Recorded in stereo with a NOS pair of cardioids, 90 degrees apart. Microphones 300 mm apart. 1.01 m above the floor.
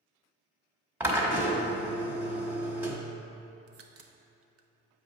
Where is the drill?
5° right, 1.1 m.